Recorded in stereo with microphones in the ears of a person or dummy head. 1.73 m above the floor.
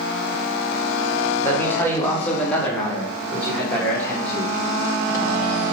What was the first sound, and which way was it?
A man speaking, 10° left (ahead or behind).